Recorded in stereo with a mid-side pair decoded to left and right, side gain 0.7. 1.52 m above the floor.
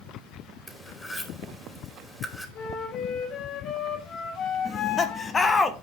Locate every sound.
0.7 s cutlery clinking: 10° left, 2.5 m
2.5 s a flute: 45° left, 3 m
4.7 s laughter: 25° left, 2.0 m